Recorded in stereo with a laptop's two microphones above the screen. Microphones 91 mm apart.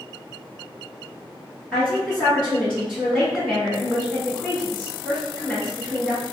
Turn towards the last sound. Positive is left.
turn(degrees=5)  # may be behind; listen again after turning